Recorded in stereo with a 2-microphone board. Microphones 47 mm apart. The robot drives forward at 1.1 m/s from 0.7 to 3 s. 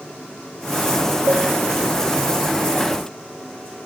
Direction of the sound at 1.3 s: 60° right (ahead or behind).